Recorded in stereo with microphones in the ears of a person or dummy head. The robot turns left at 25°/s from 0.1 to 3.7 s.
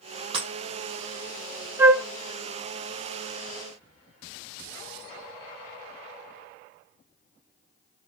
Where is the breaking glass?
40° right (ahead or behind), 4 m.